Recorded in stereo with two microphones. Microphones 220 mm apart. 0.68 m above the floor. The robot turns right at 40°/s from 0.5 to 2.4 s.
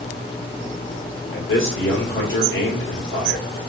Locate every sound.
1.3 s a man speaking: 70° left, 1.9 m; by 3.5 s 110° left, 1.9 m